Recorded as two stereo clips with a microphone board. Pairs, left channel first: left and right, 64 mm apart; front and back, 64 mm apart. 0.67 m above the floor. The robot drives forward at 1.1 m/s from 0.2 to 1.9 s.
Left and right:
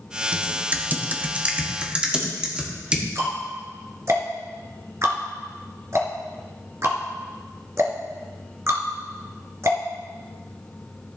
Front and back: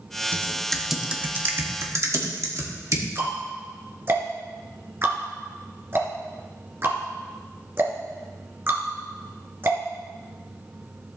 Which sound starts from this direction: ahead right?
Typing on a keyboard, at 0.3 s.